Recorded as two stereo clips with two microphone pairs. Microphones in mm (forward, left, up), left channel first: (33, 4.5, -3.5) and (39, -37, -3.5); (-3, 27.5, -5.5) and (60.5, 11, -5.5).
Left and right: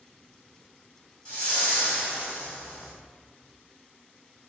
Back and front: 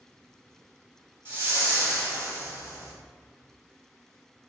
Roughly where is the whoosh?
Ahead left.